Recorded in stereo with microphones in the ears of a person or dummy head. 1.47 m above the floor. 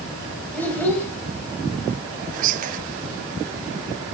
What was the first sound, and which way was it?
A child speaking, 5° left (ahead or behind).